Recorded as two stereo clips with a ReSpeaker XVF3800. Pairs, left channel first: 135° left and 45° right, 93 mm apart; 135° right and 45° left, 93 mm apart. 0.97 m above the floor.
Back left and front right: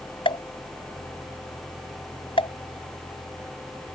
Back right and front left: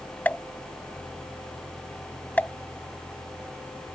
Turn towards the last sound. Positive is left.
turn(degrees=155)